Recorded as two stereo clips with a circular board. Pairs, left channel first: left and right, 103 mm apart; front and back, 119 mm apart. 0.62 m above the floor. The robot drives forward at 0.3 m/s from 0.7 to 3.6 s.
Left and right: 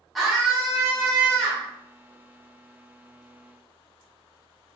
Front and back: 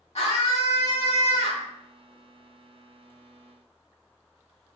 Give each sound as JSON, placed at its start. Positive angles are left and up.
{"t": 0.1, "sound": "a scream", "azimuth_deg": 0, "distance_m": 1.3}